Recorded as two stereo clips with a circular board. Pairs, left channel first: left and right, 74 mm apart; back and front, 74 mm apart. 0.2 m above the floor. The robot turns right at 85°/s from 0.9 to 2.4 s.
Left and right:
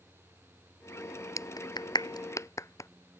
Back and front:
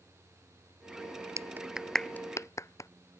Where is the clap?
45° left; by 2.9 s 135° left.